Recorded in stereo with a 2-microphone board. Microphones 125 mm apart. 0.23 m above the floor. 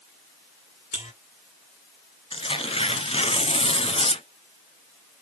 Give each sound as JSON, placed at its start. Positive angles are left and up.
{"t": 0.9, "sound": "a buzzer", "side_deg": 70, "distance_m": 3.5}
{"t": 2.3, "sound": "tearing paper", "side_deg": 55, "distance_m": 1.1}